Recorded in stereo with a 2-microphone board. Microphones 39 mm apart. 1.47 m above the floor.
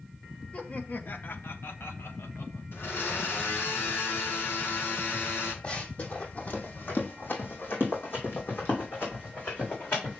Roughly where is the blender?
Left.